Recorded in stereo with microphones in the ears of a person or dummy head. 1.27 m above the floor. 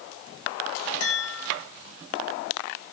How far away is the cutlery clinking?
I don't hear cutlery clinking.